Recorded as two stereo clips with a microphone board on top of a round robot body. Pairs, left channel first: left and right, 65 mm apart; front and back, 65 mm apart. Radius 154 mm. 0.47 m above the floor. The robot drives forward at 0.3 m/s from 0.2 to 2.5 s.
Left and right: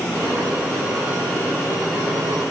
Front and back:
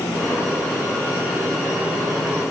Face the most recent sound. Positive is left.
No sound to turn to.